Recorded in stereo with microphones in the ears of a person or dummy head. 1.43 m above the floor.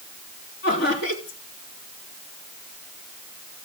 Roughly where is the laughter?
Left.